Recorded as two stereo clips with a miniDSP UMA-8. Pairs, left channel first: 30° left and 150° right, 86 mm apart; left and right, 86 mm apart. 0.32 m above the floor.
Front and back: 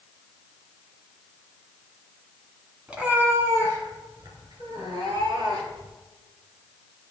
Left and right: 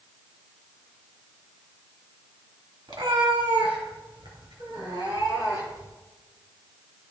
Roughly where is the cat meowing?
Right.